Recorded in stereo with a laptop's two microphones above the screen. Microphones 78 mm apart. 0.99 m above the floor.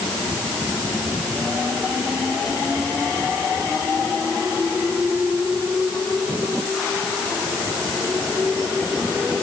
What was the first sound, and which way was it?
Only background noise.